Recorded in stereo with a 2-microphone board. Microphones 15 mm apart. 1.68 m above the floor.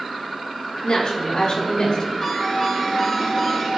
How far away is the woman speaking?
About 6 m.